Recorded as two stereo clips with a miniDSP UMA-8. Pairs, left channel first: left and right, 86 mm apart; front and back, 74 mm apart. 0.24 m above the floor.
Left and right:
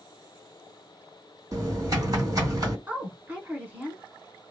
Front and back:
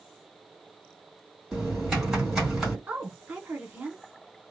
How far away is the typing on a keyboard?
About 2 m.